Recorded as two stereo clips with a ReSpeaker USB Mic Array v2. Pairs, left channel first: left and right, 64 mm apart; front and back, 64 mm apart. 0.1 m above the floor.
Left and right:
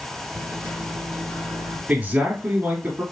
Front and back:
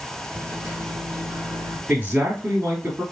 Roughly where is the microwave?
Behind left.